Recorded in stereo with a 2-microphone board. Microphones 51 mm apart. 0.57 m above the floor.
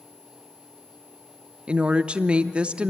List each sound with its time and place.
1.7 s a woman speaking: 20° right (ahead or behind), 0.7 m